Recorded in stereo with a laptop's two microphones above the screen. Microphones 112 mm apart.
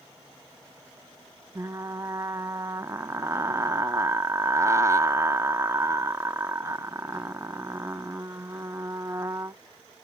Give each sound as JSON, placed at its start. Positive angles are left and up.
{"t": 1.6, "sound": "frying", "side_deg": -25, "distance_m": 0.5}